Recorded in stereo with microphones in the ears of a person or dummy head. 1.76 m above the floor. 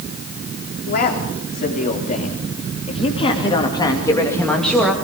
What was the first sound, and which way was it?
A man speaking, 45° left (ahead or behind).